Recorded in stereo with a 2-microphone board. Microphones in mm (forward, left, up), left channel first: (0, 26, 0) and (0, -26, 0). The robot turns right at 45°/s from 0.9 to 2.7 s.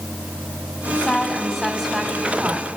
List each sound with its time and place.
0.8 s a woman speaking: 135° left, 1.4 m; by 2.7 s 145° right, 1.4 m